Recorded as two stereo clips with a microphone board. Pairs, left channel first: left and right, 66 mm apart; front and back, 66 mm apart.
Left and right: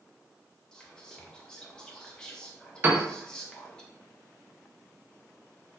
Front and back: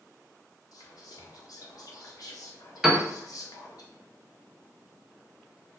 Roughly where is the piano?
Right.